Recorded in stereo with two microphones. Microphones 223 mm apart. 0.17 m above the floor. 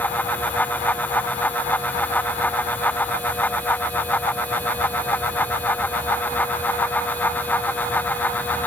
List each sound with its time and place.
Only background noise.